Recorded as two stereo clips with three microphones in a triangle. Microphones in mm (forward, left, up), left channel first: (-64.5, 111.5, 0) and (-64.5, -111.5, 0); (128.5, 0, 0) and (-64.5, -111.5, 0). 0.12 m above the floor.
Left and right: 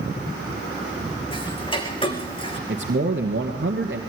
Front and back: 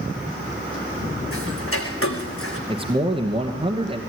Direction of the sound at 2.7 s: 90° right.